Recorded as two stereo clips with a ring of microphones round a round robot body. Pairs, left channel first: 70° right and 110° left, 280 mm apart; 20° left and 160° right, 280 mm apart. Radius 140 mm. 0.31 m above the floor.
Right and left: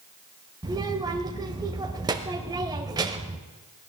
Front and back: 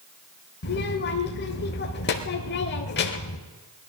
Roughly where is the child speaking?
Ahead left.